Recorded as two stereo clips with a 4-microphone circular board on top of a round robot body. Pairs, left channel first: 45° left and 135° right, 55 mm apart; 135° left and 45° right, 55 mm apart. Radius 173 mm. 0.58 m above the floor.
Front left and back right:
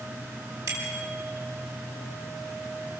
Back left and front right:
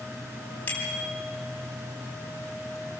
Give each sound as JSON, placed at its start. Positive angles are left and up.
{"t": 0.7, "sound": "a bicycle bell", "azimuth_deg": -165, "distance_m": 6.5}